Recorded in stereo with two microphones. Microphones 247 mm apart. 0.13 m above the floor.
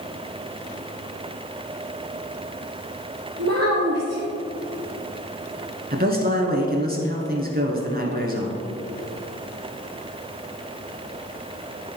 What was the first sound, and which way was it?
A child speaking, 65° right (ahead or behind).